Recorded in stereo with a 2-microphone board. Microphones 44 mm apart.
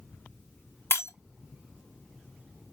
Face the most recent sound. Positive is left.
turn(degrees=70)  # may be behind; listen again after turning